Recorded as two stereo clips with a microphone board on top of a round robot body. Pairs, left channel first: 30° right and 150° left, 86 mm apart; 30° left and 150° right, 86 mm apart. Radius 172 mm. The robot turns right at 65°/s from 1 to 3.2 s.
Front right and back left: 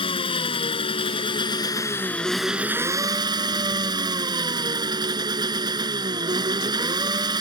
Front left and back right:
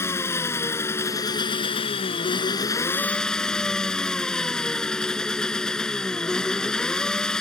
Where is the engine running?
30° right; by 7.4 s 115° left.